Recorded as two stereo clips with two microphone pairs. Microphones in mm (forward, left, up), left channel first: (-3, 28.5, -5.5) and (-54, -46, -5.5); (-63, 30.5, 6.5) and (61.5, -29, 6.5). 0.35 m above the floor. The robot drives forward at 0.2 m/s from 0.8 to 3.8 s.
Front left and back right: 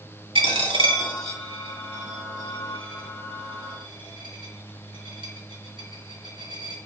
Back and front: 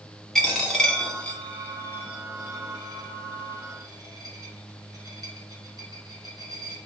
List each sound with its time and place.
0.3 s a dropped coin: 120° right, 0.8 m; by 6.8 s 145° right, 1.2 m